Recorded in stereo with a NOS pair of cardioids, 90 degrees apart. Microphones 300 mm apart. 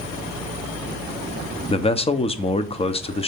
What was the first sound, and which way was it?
A man speaking, 20° left.